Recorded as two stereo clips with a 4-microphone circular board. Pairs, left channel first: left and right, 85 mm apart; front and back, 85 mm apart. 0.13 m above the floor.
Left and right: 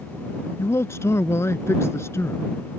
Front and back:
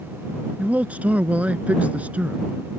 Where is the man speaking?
120° left.